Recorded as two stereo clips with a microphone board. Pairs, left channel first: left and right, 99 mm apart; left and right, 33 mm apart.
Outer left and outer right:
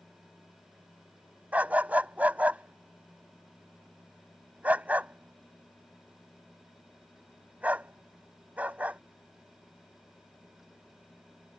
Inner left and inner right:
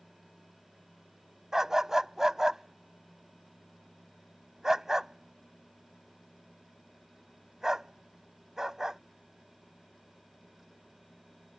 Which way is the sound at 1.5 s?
15° right (ahead or behind).